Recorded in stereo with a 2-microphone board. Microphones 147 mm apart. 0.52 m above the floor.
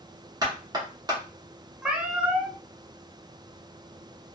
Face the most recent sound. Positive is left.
turn(degrees=-5)  # may be behind; listen again after turning